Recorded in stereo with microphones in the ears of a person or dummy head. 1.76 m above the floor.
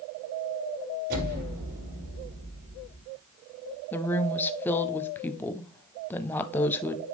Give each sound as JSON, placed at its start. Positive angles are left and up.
{"t": 1.1, "sound": "an explosion", "side_deg": -60, "distance_m": 6.0}
{"t": 3.9, "sound": "a woman speaking", "side_deg": 10, "distance_m": 0.5}